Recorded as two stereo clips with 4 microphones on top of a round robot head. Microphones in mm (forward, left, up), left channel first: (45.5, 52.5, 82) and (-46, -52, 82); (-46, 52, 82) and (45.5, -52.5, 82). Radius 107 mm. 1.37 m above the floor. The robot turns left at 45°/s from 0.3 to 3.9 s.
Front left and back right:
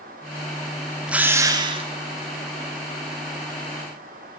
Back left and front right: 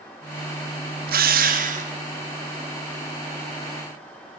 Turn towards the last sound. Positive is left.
turn(degrees=-175)